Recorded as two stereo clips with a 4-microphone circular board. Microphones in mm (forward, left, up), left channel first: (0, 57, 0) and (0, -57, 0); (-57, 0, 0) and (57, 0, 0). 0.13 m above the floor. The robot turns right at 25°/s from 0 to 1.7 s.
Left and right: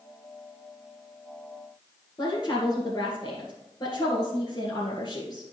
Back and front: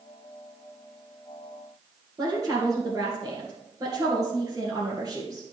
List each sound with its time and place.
2.2 s a woman speaking: 50° left, 2.5 m